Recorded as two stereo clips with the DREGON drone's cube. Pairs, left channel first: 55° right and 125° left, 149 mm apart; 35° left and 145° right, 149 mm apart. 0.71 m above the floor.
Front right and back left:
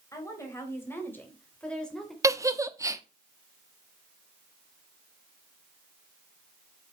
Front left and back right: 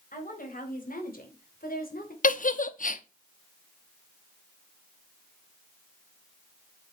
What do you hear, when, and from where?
0.1 s a woman speaking: 15° left, 4 m; by 2.1 s 35° left, 2.5 m
2.2 s a giggle: 55° left, 0.7 m